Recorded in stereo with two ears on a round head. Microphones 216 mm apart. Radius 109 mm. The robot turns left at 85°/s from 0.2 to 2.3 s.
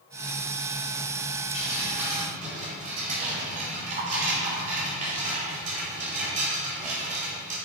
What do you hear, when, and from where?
1.5 s dripping: 30° left, 2.5 m; by 7.6 s 35° right, 2.5 m